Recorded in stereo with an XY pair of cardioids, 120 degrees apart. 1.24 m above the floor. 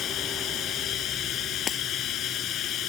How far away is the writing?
No writing in this recording.